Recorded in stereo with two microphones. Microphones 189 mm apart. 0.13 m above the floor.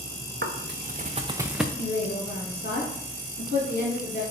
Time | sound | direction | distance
0.4 | footsteps | 75° right (ahead or behind) | 0.7 m
1.8 | a woman speaking | 50° left (ahead or behind) | 2.5 m